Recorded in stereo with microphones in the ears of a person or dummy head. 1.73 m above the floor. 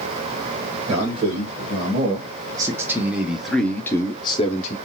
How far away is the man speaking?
About 2.0 m.